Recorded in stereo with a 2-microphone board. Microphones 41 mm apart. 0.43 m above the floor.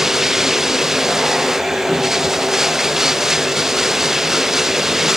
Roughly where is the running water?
Centre.